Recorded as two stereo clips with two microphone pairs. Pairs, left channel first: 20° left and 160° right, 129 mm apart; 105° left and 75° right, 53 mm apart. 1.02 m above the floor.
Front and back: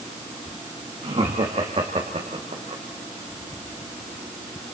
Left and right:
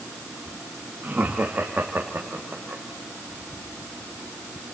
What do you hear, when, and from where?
1.0 s laughter: 125° right, 1.8 m; by 2.8 s 135° right, 3 m